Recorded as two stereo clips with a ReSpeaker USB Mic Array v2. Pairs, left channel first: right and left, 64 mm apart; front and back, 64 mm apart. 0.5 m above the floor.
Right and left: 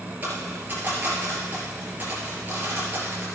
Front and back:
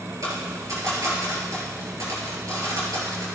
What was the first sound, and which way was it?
A dropped coin, 150° left.